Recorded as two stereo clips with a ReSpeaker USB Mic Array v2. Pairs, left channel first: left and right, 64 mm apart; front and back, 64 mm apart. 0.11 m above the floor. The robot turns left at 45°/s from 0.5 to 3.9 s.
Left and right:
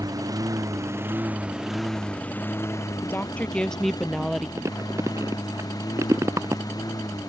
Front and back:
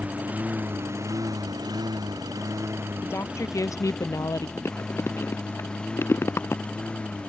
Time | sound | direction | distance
0.0 | a lawn mower | 110° right | ?
3.0 | a woman speaking | 45° left | ?
4.6 | chewing | 50° right | ?